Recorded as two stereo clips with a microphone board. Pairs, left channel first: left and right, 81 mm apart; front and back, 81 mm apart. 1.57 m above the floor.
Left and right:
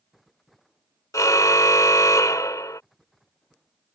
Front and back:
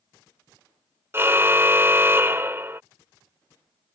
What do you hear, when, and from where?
1.1 s a car horn: 125° left